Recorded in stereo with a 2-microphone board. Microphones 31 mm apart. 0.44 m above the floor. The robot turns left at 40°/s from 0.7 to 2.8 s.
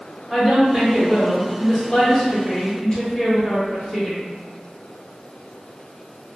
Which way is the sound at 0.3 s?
15° right (ahead or behind).